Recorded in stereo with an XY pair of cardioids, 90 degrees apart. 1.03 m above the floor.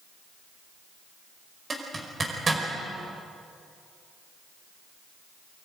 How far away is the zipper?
About 5 m.